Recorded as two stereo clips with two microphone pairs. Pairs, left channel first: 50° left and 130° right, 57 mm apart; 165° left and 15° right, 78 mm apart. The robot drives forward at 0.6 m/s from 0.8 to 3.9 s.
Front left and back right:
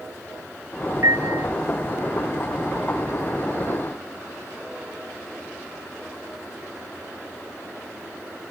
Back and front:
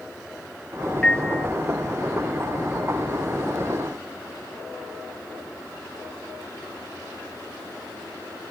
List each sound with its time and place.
1.0 s a piano: 115° right; by 1.5 s 120° right